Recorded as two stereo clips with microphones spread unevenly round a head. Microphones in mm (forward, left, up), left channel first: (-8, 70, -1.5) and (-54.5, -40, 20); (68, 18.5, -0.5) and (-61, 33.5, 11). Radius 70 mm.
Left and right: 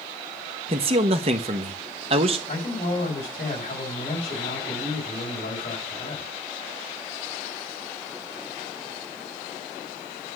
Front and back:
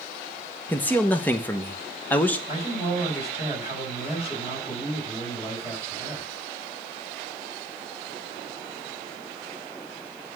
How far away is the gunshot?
I don't hear a gunshot.